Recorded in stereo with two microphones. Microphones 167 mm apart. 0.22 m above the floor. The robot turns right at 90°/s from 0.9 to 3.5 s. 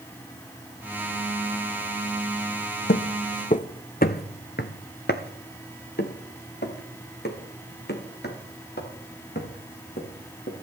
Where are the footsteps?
75° left (ahead or behind), 0.8 m; by 10.5 s 80° left, 5 m.